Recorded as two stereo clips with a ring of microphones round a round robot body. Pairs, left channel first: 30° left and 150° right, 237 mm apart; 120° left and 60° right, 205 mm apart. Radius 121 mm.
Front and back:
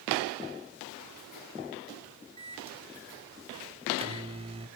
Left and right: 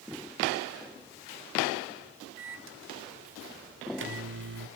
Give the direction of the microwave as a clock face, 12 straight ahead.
3 o'clock.